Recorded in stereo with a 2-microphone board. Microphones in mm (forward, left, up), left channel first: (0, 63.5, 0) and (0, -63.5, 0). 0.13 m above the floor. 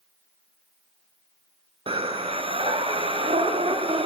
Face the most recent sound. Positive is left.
turn(degrees=-45)  # may be behind; listen again after turning